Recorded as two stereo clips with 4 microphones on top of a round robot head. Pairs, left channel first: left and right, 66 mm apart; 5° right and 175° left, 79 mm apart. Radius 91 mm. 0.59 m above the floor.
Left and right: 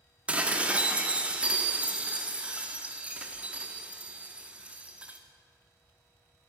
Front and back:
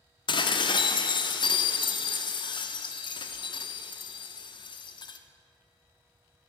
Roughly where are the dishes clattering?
Ahead.